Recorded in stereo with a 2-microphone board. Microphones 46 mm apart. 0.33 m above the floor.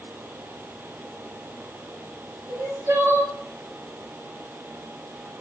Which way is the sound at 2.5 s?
60° right (ahead or behind).